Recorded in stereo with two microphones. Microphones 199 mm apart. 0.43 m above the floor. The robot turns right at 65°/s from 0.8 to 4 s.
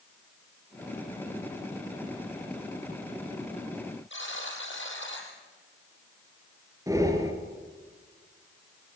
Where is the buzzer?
65° left (ahead or behind), 4.5 m.